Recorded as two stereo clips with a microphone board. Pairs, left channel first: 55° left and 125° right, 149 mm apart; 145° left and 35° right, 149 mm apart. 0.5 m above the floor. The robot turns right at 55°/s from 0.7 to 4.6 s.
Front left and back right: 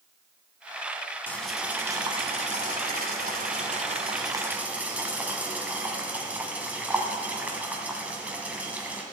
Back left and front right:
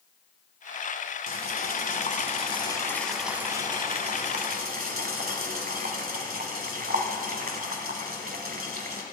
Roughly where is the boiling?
Behind left.